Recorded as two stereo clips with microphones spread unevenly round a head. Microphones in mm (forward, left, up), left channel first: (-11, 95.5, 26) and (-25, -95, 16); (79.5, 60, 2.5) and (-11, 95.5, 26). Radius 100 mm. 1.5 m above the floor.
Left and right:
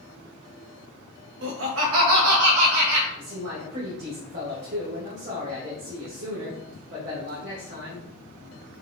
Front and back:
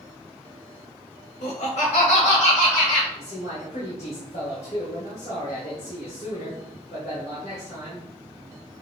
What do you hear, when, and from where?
1.4 s laughter: 60° right, 1.3 m; by 3.1 s 90° right, 2.5 m
3.2 s a man speaking: 60° right, 2.0 m